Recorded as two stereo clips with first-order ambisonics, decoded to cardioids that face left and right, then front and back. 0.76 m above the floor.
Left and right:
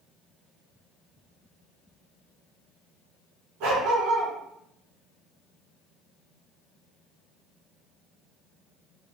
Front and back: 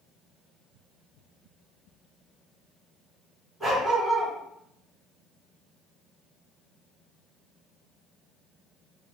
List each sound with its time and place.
3.6 s a dog barking: 95° right, 2 m